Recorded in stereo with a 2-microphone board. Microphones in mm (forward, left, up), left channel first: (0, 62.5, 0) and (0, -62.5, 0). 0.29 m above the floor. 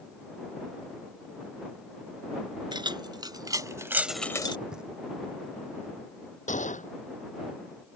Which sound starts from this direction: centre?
Knocking, at 4.7 s.